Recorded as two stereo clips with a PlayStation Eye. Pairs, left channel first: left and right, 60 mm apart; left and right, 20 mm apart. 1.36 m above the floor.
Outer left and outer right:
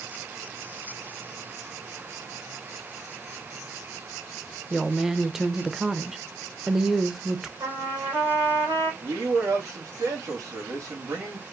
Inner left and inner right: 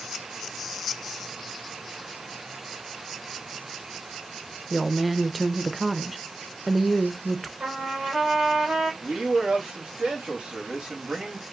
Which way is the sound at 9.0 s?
50° right (ahead or behind).